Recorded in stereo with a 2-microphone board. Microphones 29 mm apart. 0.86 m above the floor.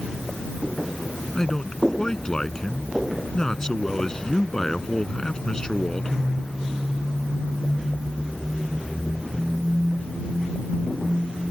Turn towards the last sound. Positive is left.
turn(degrees=25)  # may be behind; listen again after turning